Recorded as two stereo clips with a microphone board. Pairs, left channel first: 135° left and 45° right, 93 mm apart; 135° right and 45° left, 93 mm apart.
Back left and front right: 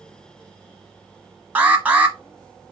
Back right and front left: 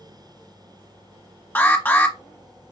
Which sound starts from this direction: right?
An alarm, at 1.6 s.